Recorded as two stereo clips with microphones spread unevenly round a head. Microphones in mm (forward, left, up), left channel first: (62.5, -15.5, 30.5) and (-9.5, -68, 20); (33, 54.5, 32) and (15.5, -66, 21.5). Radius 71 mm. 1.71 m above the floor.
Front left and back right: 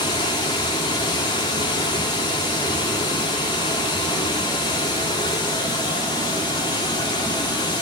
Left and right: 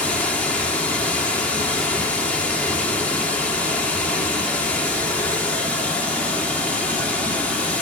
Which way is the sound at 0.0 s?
5° left.